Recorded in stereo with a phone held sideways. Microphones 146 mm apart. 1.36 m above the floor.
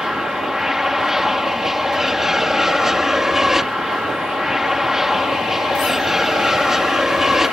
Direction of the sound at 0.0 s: Centre (ahead or behind).